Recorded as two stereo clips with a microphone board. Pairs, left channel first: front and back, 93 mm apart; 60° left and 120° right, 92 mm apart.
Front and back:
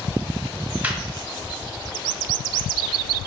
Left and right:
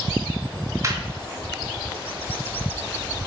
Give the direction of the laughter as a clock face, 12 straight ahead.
4 o'clock.